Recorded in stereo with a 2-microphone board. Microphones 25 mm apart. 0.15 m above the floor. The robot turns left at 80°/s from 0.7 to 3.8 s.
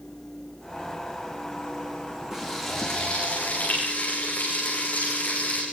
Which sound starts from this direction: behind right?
Frying, at 2.3 s.